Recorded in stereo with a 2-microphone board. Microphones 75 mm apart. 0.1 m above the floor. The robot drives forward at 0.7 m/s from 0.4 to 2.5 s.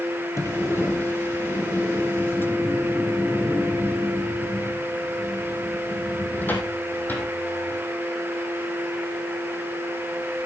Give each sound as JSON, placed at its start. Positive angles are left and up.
{"t": 0.4, "sound": "a sliding door", "side_deg": 35, "distance_m": 2.0}